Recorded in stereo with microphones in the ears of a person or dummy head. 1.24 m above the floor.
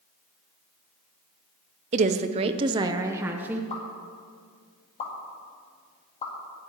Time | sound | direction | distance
1.9 | a woman speaking | 35° right (ahead or behind) | 0.6 m
3.7 | a pop | 35° left (ahead or behind) | 2 m